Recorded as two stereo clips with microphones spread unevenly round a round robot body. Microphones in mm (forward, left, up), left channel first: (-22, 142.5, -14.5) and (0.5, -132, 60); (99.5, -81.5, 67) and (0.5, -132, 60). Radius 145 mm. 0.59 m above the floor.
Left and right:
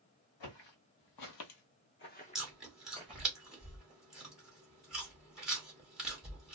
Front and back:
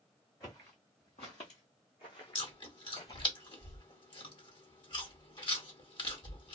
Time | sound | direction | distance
0.4 | footsteps | 100° left | 1.3 m
2.4 | chewing | 20° left | 1.1 m